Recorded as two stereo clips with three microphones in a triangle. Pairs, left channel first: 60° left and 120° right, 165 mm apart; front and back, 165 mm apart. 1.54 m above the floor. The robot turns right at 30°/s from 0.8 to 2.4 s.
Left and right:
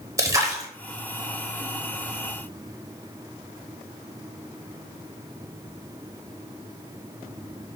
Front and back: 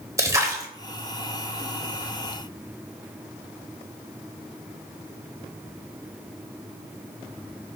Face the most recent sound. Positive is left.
turn(degrees=-100)